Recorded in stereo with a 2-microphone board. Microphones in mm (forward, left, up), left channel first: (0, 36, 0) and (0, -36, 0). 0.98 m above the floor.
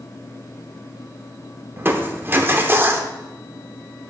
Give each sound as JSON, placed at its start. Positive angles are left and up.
{"t": 1.8, "sound": "crushing", "side_deg": -30, "distance_m": 0.7}